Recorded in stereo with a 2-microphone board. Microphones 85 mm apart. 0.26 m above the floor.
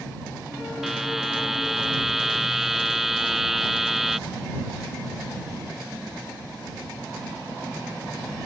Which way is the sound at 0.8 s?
5° right (ahead or behind).